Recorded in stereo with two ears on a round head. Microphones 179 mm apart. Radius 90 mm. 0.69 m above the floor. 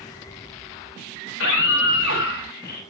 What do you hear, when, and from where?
1.3 s a scream: 70° left (ahead or behind), 5 m; by 2.8 s 55° left (ahead or behind), 5.5 m